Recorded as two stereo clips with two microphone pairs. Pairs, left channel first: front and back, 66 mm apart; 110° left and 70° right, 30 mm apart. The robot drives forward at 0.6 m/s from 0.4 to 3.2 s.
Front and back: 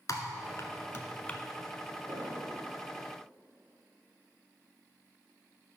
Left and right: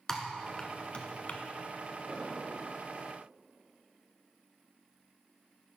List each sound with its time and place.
0.1 s typing on a keyboard: 40° left, 0.9 m; by 1.4 s 80° left, 0.6 m
2.1 s an explosion: 170° right, 2.0 m